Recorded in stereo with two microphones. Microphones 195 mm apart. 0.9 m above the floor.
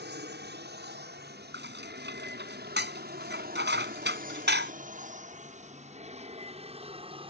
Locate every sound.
0.0 s an aircraft: 60° right (ahead or behind); by 7.3 s 30° right (ahead or behind)
1.5 s dishes clattering: 65° right (ahead or behind)